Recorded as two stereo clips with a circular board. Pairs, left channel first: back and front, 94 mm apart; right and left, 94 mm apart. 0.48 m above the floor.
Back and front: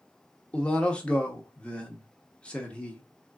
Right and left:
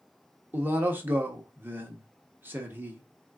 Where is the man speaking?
120° left, 0.9 m.